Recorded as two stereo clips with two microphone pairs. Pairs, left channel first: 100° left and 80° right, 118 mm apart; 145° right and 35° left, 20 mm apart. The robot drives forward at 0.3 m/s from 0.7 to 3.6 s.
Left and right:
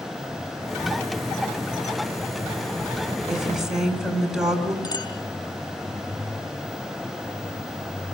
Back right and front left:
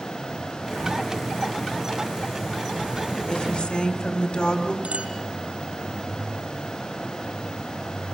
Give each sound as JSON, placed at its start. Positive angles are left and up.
{"t": 3.3, "sound": "a woman speaking", "azimuth_deg": -165, "distance_m": 4.0}
{"t": 4.8, "sound": "a clink", "azimuth_deg": 45, "distance_m": 4.0}